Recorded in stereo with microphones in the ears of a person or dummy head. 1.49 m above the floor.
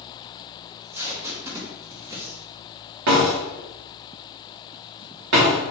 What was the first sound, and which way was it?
Tape being pulled, 10° right (ahead or behind).